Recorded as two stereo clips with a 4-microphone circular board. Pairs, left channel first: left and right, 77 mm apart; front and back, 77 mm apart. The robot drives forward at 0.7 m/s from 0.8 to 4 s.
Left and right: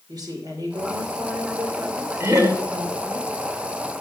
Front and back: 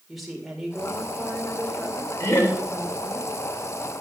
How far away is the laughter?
About 2.5 m.